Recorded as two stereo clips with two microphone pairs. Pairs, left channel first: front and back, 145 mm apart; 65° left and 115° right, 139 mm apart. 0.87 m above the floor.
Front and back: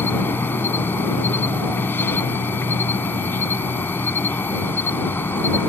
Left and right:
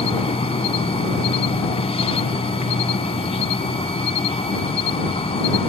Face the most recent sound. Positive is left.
turn(degrees=70)